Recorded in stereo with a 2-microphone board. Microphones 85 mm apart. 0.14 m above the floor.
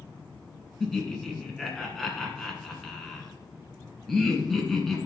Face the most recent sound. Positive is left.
turn(degrees=5)  # may be behind; listen again after turning